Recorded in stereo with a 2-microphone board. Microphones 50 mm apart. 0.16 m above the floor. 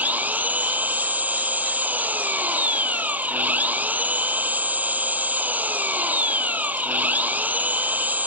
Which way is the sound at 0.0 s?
35° right (ahead or behind).